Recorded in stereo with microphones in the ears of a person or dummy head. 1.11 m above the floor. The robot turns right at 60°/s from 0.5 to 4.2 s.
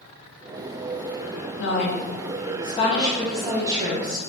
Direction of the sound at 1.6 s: 75° left.